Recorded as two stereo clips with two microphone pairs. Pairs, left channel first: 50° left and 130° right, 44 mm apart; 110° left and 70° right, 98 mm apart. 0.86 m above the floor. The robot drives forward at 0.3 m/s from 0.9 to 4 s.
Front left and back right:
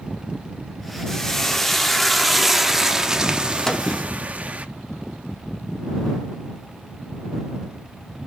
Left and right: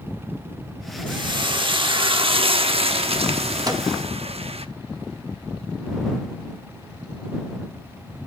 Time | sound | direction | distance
1.1 | frying | 30° right | 1.2 m
3.7 | a microwave | 35° right | 0.9 m